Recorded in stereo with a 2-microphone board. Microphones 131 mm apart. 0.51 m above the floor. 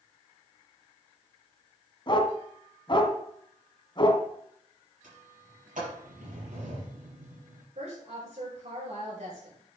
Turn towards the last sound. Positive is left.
turn(degrees=-60)  # may be behind; listen again after turning